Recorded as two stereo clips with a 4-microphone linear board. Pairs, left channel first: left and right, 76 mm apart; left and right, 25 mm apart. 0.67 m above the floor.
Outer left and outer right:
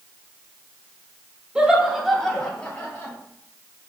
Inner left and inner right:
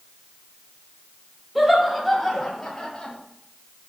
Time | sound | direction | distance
1.6 | laughter | 10° right (ahead or behind) | 1.1 m